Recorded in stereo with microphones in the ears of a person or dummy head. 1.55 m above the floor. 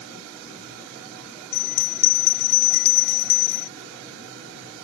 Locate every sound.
1.5 s a bell: 60° left (ahead or behind)